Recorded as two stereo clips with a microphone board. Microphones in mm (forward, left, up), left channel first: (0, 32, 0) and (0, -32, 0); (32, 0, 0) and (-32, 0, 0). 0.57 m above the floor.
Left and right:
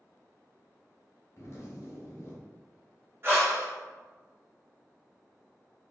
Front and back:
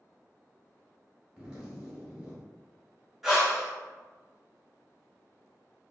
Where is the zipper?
110° left, 1.1 m.